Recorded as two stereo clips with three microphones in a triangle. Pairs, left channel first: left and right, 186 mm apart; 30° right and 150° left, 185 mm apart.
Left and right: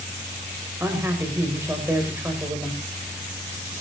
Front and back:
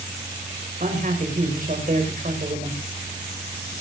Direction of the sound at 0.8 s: 165° right.